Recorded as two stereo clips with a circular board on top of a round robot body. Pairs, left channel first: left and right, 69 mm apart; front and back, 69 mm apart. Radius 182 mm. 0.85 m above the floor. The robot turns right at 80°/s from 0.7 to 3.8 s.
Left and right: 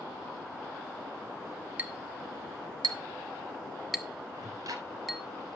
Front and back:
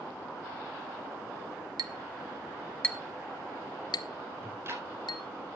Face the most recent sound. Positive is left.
turn(degrees=-125)